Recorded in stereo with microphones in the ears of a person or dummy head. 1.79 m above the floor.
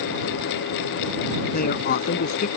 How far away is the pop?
I don't hear a pop.